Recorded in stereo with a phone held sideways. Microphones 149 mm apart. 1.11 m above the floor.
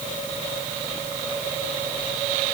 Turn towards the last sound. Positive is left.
No sound to turn to.